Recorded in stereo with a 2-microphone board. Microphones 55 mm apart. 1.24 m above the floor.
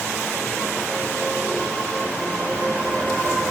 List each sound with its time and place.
Only background noise.